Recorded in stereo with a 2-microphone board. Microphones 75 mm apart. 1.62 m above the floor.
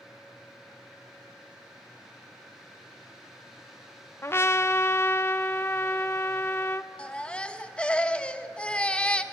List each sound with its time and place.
4.2 s a trumpet: 35° left (ahead or behind), 0.8 m
7.0 s a baby crying: 15° left (ahead or behind), 1.0 m